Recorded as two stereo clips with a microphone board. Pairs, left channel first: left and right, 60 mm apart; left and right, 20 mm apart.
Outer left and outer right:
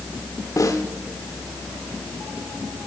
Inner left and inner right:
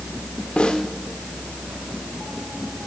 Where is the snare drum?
65° left (ahead or behind), 1.1 m.